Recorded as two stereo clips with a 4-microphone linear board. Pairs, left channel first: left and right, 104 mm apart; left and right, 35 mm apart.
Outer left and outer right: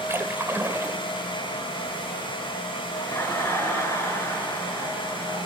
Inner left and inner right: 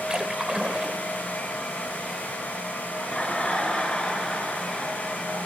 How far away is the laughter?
About 5 m.